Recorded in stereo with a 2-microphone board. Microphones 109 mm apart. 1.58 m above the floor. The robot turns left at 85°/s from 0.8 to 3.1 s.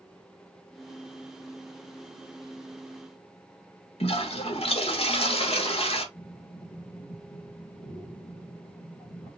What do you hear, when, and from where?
4.0 s a toilet flushing: 65° left (ahead or behind), 1.3 m
6.2 s breathing: 85° left, 2.5 m